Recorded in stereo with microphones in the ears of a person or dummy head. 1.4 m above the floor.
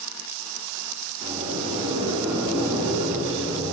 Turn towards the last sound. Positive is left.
turn(degrees=-30)  # may be behind; listen again after turning